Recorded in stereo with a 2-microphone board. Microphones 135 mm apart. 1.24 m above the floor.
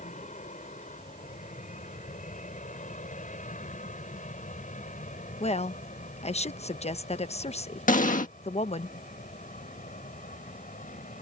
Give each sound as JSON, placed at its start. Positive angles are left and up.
{"t": 0.0, "sound": "an aircraft", "side_deg": 65}
{"t": 5.4, "sound": "a woman speaking", "side_deg": 55}
{"t": 7.9, "sound": "an explosion", "side_deg": 80}